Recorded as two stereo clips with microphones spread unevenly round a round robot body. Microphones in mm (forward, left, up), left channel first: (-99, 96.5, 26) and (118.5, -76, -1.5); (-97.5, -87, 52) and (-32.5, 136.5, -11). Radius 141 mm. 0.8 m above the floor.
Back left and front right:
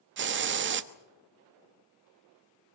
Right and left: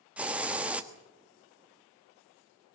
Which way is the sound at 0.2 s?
Straight ahead.